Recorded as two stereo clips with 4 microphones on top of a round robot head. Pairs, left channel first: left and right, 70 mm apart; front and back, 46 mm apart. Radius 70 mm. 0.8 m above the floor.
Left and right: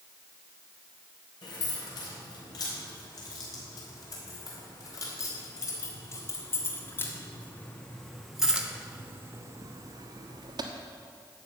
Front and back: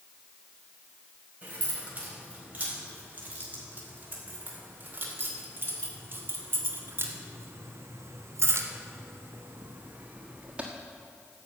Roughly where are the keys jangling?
Behind left.